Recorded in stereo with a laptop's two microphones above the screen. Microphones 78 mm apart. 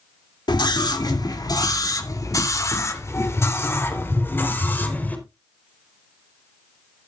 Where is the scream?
70° left (ahead or behind), 2.5 m; by 5.2 s 25° left (ahead or behind), 3.5 m.